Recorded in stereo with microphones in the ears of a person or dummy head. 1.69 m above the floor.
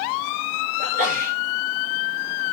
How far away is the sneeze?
About 5.5 m.